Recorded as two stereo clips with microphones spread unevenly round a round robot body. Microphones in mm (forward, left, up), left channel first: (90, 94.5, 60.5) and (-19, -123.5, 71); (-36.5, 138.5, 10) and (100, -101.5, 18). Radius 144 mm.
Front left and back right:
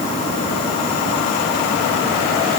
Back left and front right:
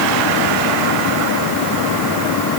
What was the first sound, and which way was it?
Only background noise.